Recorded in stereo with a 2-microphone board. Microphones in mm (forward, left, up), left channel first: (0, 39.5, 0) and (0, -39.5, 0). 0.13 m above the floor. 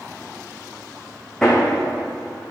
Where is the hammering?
5° left (ahead or behind), 2 m.